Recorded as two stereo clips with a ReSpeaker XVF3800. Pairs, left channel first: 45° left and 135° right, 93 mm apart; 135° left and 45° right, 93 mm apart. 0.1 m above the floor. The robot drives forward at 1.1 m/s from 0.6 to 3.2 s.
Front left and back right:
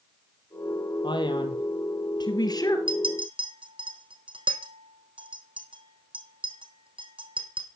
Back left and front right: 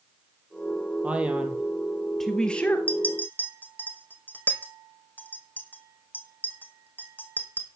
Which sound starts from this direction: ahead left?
A man speaking, at 1.0 s.